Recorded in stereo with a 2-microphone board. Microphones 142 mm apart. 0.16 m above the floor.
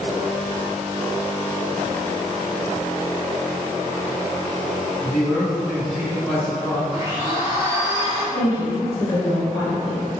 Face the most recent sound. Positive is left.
turn(degrees=30)  # may be behind; listen again after turning